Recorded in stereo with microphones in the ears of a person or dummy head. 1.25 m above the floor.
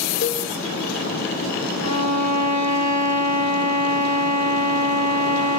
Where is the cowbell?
40° left (ahead or behind), 0.9 m.